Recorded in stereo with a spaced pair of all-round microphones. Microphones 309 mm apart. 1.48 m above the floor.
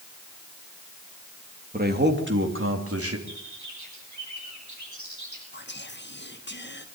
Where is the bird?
70° right (ahead or behind), 8.5 m.